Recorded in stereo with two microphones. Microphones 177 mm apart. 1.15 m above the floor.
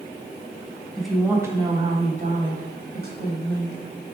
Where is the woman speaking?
5° left (ahead or behind), 1.0 m; by 3.8 s 70° right (ahead or behind), 1.7 m.